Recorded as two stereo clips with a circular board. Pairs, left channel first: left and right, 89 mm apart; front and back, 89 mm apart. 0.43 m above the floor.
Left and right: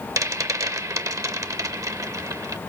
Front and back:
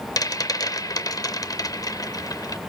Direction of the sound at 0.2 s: 45° right.